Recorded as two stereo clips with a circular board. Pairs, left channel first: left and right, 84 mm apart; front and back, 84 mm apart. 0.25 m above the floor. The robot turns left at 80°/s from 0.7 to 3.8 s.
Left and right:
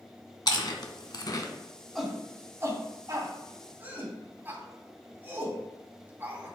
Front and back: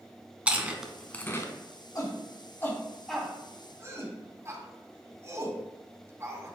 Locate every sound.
0.5 s chewing: 105° left, 1.0 m; by 1.5 s 40° left, 1.0 m
1.9 s a shout: 5° left, 2 m; by 6.5 s 145° right, 2 m